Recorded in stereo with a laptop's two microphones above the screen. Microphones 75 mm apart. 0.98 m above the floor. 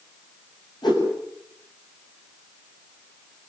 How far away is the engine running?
No engine running in this recording.